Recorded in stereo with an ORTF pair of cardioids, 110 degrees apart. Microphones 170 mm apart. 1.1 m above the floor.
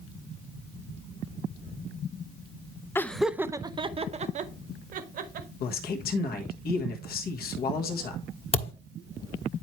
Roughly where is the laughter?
Ahead.